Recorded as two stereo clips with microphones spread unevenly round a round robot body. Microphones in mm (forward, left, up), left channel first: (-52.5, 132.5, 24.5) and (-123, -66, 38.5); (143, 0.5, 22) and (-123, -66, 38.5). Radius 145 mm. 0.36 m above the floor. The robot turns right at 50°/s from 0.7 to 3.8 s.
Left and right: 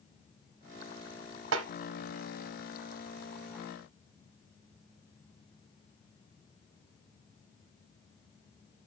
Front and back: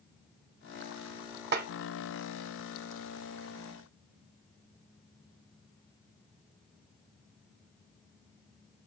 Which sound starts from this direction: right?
A snare drum, at 1.5 s.